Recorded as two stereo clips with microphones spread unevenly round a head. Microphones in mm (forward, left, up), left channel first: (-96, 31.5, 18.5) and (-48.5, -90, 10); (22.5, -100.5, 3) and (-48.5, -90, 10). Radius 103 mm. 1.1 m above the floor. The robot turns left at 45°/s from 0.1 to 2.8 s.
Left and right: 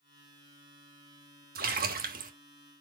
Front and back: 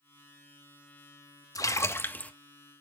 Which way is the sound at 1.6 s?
50° right.